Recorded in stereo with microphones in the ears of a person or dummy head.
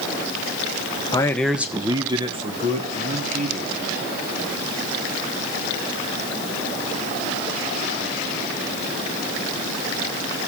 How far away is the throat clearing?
No throat clearing in this recording.